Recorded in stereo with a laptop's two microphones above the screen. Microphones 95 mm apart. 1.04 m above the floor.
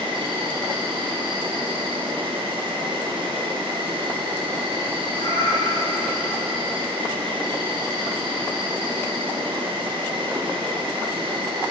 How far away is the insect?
About 1.2 m.